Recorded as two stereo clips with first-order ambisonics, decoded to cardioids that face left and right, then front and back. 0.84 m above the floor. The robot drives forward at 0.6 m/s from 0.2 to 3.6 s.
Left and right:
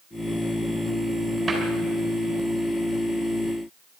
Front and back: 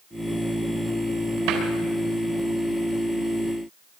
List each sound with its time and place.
1.5 s a cupboard door: 175° right, 4 m